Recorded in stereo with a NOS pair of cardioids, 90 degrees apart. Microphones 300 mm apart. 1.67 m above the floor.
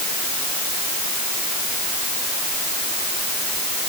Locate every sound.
Only background noise.